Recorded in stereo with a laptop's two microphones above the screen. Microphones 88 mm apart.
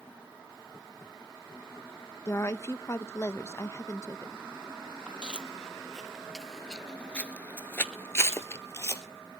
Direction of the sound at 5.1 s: 10° right (ahead or behind).